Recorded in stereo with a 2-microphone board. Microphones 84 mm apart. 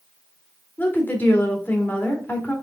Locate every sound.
0.8 s a woman speaking: 25° left (ahead or behind), 2.5 m